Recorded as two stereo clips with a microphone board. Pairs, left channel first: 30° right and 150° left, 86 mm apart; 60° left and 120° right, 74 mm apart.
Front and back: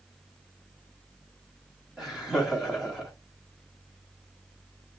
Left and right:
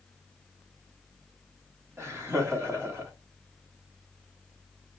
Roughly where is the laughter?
Behind right.